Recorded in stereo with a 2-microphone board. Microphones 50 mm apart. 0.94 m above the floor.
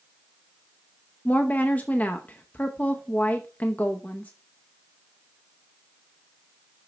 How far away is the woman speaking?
About 0.7 m.